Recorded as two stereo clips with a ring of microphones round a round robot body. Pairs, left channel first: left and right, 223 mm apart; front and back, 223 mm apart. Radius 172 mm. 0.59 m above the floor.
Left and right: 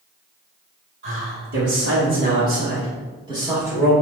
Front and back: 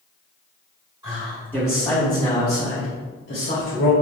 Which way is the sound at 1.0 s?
110° right.